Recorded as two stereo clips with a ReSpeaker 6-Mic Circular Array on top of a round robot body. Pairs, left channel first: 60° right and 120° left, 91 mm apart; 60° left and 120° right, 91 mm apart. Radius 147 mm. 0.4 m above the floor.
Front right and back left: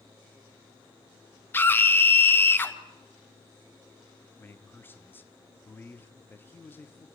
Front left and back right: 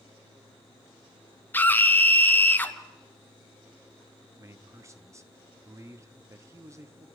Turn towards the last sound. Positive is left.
turn(degrees=-105)